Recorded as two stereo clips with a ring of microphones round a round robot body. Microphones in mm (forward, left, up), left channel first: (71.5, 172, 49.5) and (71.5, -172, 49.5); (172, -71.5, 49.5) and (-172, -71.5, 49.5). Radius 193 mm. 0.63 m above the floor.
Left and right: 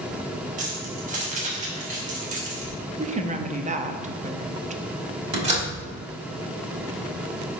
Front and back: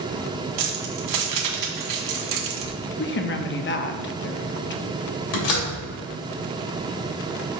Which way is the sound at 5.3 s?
20° right.